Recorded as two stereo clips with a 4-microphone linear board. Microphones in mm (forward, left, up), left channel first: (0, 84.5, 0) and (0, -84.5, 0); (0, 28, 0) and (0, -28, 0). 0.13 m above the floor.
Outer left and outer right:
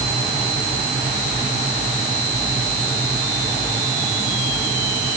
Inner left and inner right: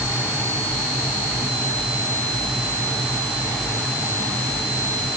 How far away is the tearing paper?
No tearing paper in this recording.